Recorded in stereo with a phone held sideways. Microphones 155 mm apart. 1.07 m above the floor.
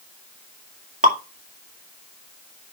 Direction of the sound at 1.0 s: 60° right (ahead or behind).